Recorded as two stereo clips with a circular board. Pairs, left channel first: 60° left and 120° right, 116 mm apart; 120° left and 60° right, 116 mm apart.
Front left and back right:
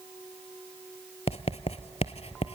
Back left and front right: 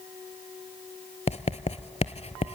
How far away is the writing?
About 0.6 m.